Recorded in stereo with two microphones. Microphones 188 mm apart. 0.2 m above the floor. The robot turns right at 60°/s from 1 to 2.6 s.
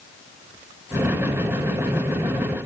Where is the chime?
I don't hear a chime.